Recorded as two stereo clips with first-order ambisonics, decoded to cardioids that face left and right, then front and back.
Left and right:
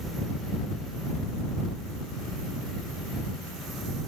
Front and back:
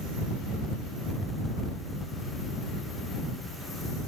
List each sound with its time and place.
Only background noise.